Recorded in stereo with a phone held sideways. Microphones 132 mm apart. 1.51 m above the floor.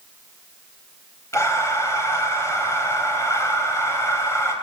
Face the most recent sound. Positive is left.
turn(degrees=20)  # may be behind; listen again after turning